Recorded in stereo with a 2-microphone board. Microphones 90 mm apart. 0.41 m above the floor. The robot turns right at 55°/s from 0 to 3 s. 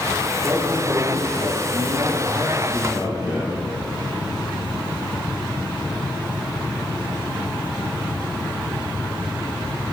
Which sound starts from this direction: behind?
A man speaking, at 0.3 s.